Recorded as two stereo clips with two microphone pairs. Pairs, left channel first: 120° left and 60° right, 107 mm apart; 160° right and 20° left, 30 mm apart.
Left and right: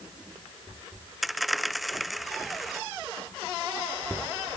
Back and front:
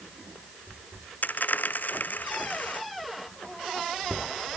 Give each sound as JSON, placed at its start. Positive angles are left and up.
{"t": 1.2, "sound": "a dropped coin", "azimuth_deg": -150}